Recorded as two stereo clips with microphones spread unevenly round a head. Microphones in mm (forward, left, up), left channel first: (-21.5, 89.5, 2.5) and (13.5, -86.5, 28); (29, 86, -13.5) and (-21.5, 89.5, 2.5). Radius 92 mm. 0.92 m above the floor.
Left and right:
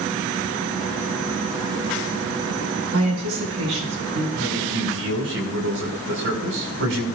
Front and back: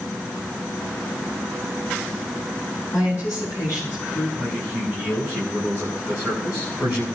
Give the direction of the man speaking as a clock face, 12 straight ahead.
3 o'clock.